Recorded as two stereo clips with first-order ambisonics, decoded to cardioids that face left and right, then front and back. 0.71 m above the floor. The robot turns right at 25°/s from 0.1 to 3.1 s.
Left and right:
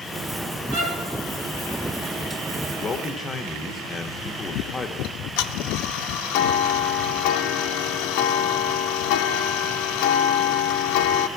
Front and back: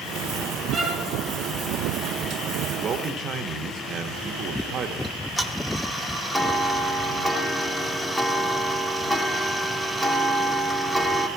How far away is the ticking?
About 0.6 m.